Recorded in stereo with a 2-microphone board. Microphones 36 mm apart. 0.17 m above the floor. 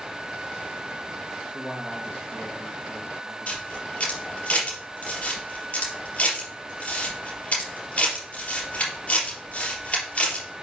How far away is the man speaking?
About 3 m.